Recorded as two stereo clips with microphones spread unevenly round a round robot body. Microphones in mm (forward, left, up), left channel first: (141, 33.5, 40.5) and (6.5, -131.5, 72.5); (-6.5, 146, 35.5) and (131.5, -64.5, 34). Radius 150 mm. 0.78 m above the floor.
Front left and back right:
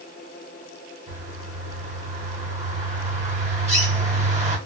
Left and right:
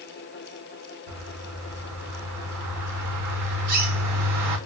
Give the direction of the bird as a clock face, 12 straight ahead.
2 o'clock.